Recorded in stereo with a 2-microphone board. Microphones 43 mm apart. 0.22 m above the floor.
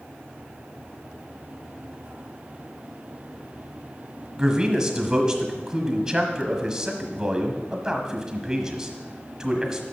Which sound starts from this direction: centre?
A man speaking, at 4.4 s.